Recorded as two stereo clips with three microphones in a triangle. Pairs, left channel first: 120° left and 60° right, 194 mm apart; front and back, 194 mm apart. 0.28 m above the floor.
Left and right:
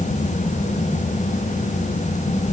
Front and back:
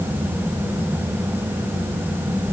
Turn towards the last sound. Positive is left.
No sound to turn to.